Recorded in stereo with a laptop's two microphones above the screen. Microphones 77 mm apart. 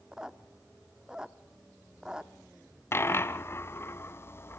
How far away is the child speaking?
No child speaking in this recording.